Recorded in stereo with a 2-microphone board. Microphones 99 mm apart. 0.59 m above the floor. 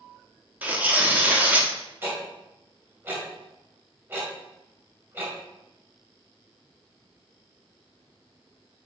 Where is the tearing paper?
15° right (ahead or behind), 1.0 m.